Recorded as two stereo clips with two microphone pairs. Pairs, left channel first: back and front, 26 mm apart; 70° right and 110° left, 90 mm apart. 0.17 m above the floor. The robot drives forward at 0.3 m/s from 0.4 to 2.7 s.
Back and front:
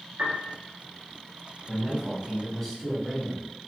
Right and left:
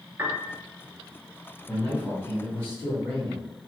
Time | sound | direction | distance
0.2 | a piano | 45° left | 0.9 m
1.7 | a man speaking | 105° right | 1.7 m